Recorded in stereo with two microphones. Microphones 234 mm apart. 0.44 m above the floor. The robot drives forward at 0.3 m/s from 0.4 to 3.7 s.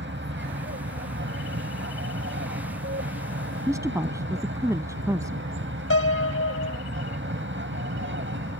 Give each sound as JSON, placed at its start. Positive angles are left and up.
{"t": 0.0, "sound": "an aircraft", "side_deg": -50}
{"t": 3.7, "sound": "a woman speaking", "side_deg": -10}
{"t": 5.9, "sound": "a piano", "side_deg": 70}